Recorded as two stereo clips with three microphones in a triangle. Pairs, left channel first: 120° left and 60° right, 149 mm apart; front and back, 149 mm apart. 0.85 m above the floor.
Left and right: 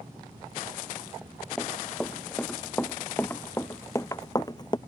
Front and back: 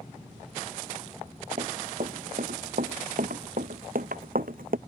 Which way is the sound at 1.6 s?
155° right.